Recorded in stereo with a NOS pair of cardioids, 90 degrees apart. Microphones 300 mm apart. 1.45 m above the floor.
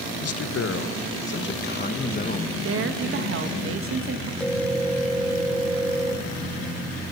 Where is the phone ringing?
5° left, 1.6 m.